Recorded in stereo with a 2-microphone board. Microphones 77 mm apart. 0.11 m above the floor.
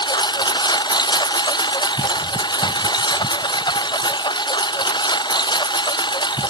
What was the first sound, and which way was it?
A lawn mower, 75° left (ahead or behind).